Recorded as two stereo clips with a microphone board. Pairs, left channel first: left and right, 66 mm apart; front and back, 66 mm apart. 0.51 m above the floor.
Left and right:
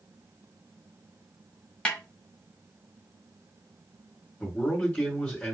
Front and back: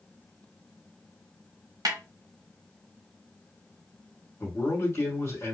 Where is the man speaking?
30° left, 1.8 m.